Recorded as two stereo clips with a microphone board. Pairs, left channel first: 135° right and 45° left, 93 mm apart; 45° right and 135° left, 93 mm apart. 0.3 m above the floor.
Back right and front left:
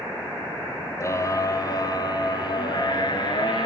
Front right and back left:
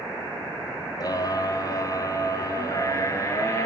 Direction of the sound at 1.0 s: 85° right.